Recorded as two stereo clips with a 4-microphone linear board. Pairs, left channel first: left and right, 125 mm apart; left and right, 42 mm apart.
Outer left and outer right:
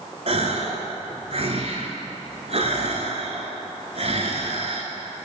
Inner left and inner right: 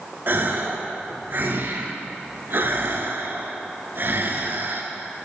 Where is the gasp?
60° right (ahead or behind), 0.9 m.